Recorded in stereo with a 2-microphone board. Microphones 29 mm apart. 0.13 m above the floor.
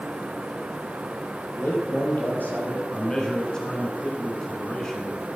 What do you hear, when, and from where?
1.6 s a man speaking: 65° left (ahead or behind), 4 m
2.9 s a man speaking: 25° left (ahead or behind), 1.5 m